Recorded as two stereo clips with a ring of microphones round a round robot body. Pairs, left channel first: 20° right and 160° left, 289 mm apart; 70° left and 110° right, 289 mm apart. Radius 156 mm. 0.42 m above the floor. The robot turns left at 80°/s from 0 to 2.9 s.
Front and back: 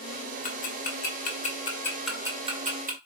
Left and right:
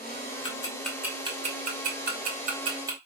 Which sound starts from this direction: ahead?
Ticking, at 0.4 s.